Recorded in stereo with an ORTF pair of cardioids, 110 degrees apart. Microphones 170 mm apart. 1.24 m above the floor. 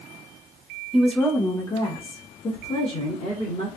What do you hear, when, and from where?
0.9 s a woman speaking: 5° right, 0.7 m; by 3.7 s 45° left, 1.9 m